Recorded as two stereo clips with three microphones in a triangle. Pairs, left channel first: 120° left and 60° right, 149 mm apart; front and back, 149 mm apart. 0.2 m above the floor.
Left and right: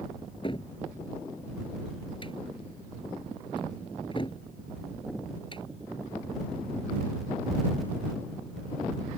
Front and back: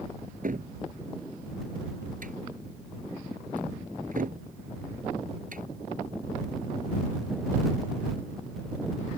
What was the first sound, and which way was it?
A cupboard door, 170° left.